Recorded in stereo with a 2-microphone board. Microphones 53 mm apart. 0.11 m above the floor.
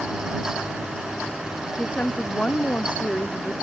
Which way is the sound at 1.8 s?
25° left (ahead or behind).